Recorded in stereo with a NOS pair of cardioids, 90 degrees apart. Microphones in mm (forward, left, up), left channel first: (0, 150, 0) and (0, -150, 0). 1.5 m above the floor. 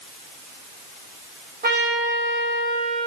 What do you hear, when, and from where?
1.6 s a trumpet: 30° right, 2 m